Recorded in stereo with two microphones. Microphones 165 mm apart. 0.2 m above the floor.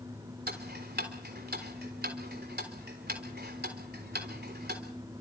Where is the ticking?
80° right, 3.5 m.